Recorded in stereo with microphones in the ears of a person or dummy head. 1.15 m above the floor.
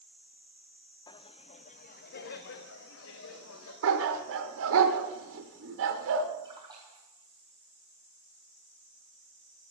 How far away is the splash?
About 3 m.